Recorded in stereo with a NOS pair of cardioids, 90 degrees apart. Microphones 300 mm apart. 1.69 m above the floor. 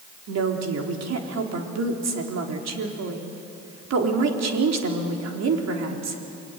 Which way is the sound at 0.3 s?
60° right.